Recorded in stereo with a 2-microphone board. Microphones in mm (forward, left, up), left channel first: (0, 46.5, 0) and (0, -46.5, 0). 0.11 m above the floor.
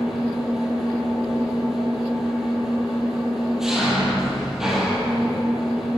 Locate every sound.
0.0 s an engine running: 5° right (ahead or behind), 2.0 m